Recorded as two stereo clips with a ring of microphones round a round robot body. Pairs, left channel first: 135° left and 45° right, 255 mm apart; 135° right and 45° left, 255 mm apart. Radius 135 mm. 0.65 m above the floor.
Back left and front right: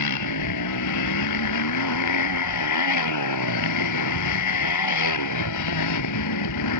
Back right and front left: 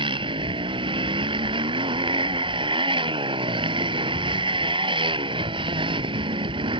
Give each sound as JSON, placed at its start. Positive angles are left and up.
{"t": 0.0, "sound": "a motorcycle", "azimuth_deg": 115}